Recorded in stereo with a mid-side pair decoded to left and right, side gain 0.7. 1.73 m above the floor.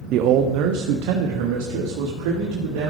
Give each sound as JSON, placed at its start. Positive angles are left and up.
{"t": 0.1, "sound": "a man speaking", "azimuth_deg": -55, "distance_m": 0.6}